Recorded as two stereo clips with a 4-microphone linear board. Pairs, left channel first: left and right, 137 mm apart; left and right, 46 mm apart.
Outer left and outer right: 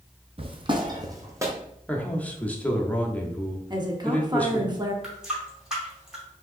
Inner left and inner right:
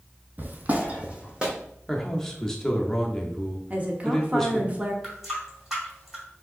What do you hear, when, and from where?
0.4 s footsteps: 40° right (ahead or behind), 0.7 m; by 1.5 s 20° right (ahead or behind), 1.2 m
1.9 s a man speaking: 10° left (ahead or behind), 0.7 m
3.7 s a woman speaking: 30° right (ahead or behind), 0.8 m
5.0 s a running tap: 5° right (ahead or behind), 2 m